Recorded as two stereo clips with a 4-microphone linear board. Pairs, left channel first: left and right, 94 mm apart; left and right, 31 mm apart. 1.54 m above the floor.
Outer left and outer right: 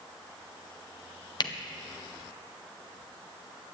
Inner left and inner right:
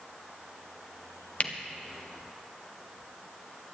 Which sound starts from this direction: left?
A camera shutter, at 1.4 s.